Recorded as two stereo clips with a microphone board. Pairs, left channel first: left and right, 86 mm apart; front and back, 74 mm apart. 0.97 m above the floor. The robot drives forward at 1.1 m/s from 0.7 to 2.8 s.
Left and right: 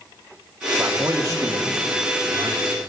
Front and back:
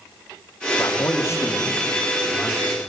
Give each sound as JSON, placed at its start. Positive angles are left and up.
{"t": 0.8, "sound": "a man speaking", "azimuth_deg": -30, "distance_m": 2.5}